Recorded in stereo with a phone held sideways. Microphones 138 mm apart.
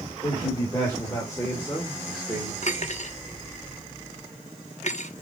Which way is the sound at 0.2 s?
25° left (ahead or behind).